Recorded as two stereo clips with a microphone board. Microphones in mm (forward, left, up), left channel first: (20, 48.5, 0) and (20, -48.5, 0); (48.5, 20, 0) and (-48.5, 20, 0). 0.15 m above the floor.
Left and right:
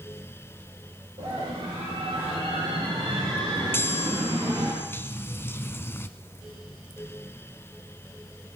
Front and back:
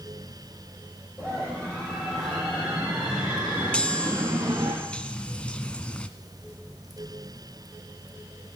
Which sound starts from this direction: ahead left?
A chime, at 3.7 s.